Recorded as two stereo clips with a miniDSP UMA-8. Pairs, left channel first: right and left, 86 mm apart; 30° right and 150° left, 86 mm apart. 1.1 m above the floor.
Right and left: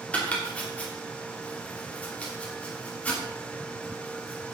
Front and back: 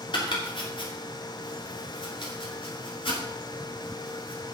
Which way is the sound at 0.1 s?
15° right.